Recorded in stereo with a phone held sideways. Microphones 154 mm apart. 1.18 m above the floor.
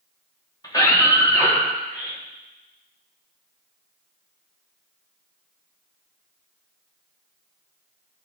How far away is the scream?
About 3 m.